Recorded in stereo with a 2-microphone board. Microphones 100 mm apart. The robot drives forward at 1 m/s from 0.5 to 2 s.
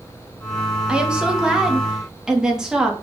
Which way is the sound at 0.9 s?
10° right (ahead or behind).